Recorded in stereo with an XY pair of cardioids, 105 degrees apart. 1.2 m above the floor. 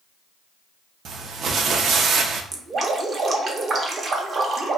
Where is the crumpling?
60° right, 0.5 m.